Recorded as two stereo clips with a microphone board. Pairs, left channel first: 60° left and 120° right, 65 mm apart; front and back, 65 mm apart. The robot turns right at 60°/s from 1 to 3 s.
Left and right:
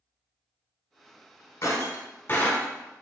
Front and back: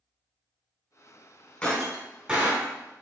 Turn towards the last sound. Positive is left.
turn(degrees=140)